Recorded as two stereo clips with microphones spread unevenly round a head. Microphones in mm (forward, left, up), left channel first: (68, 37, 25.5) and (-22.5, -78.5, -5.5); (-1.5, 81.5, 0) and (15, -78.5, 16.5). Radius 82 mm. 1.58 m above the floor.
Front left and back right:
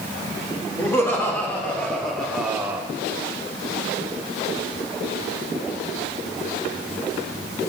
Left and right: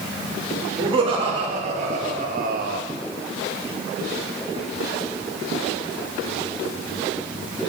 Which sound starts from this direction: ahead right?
Laughter, at 0.8 s.